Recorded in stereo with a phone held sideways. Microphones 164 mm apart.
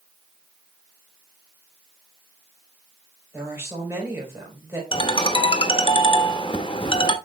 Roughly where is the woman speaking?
Centre.